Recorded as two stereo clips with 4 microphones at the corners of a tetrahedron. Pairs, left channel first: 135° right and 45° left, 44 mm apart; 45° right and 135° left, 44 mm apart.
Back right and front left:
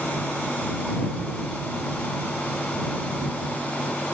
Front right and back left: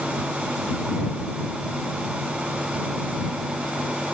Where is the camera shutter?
I don't hear a camera shutter.